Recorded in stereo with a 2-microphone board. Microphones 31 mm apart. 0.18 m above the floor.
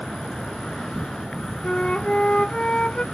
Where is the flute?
35° left (ahead or behind).